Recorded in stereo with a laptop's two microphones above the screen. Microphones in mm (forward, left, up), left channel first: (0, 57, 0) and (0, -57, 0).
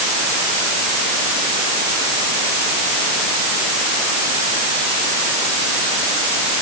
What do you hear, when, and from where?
Only background noise.